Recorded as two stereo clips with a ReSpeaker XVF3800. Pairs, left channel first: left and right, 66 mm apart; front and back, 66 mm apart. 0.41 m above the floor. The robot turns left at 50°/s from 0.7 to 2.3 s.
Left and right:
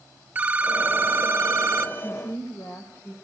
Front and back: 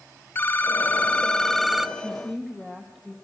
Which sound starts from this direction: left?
A woman speaking, at 2.0 s.